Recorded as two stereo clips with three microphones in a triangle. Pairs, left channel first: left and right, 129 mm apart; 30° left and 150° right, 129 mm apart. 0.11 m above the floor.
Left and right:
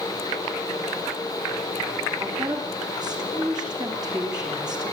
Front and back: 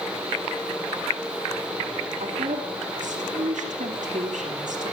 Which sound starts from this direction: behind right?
A woman speaking, at 2.2 s.